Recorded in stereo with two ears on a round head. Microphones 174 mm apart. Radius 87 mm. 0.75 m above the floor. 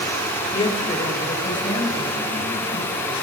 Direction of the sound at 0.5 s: 25° left (ahead or behind).